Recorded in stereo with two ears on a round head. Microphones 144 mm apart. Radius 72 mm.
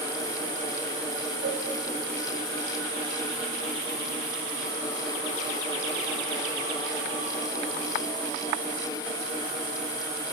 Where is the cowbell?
80° right, 2.5 m.